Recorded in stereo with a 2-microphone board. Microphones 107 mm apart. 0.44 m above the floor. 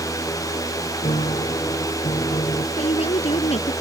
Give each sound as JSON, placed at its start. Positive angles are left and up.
{"t": 1.0, "sound": "a piano", "side_deg": 70}
{"t": 2.8, "sound": "a woman speaking", "side_deg": 80}